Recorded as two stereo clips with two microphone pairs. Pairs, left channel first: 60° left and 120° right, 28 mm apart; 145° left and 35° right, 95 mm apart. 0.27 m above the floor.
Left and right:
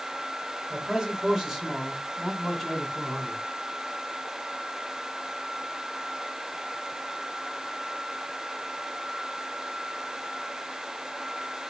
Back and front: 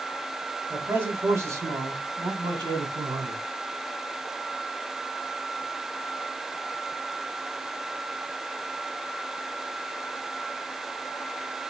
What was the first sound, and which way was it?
A man speaking, 75° right.